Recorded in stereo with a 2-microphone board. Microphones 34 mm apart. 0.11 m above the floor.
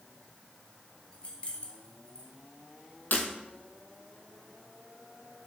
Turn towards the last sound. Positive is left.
turn(degrees=55)  # may be behind; listen again after turning